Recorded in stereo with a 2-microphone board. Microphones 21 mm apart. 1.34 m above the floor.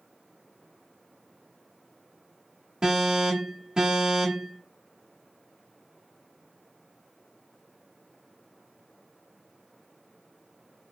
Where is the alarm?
35° right (ahead or behind), 1.1 m.